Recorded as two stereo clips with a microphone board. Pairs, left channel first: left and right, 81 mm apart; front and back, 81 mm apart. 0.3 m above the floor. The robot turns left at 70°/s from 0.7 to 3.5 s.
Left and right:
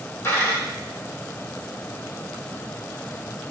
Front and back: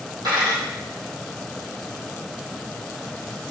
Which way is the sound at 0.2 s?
150° left.